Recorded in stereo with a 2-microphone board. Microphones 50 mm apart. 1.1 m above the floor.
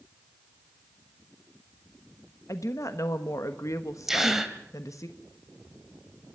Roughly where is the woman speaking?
Left.